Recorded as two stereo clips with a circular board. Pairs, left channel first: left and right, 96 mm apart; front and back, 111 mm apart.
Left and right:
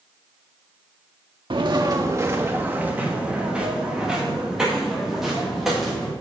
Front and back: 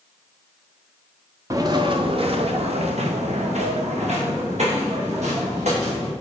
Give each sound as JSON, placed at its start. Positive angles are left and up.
{"t": 1.5, "sound": "footsteps", "azimuth_deg": -120, "distance_m": 0.9}